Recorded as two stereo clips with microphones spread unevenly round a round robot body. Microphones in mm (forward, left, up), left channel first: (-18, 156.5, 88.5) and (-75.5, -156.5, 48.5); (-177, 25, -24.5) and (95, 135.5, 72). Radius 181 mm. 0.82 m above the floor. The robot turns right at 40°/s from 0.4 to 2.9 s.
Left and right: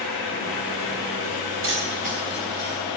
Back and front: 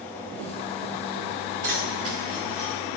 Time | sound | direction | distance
1.6 | keys jangling | 50° right | 3.5 m